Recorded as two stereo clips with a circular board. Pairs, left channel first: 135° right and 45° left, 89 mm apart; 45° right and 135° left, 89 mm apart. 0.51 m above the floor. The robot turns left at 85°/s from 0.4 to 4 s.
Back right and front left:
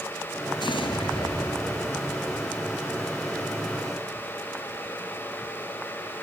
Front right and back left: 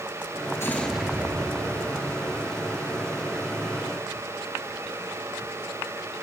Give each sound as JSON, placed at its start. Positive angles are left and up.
{"t": 0.6, "sound": "an explosion", "azimuth_deg": -105, "distance_m": 2.0}